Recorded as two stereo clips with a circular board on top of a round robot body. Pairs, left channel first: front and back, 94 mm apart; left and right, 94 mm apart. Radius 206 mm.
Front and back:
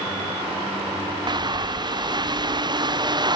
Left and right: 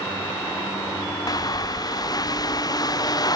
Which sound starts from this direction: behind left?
A bird, at 1.3 s.